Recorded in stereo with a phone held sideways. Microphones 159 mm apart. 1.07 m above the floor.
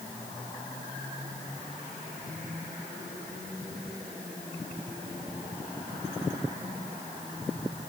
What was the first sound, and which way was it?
Only background noise.